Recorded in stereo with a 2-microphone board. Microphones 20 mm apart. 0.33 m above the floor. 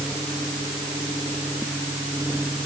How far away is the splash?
I don't hear a splash.